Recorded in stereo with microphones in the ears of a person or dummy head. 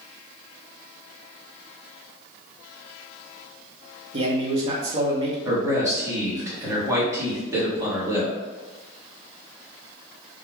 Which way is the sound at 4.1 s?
35° right (ahead or behind).